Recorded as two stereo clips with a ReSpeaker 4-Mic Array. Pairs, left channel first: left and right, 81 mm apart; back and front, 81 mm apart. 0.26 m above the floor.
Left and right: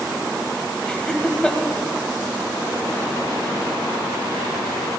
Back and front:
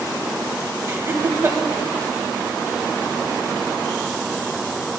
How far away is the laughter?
About 1.2 m.